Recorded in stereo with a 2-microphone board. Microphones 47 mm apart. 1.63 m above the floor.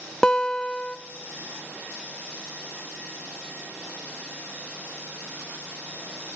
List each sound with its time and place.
0.2 s a guitar: 15° left (ahead or behind), 0.5 m